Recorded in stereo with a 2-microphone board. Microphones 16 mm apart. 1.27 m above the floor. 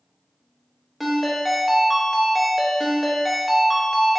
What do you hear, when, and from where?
1.0 s a ringtone: centre (ahead or behind), 0.7 m